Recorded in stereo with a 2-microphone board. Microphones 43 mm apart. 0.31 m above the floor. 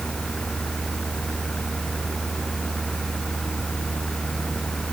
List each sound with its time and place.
Only background noise.